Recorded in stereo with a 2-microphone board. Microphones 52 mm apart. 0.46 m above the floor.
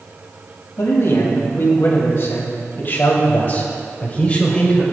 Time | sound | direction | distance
0.8 | a man speaking | 60° left (ahead or behind) | 3 m